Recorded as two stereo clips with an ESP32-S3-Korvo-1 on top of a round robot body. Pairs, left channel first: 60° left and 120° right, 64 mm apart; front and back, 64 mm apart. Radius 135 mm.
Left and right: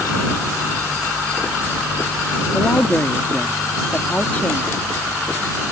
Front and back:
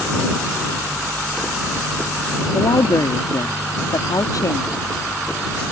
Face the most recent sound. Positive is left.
turn(degrees=-5)